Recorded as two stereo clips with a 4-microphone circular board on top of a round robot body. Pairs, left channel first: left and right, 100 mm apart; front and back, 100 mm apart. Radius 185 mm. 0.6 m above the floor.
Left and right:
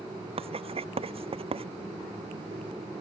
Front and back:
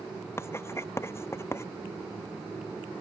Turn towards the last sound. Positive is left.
turn(degrees=-65)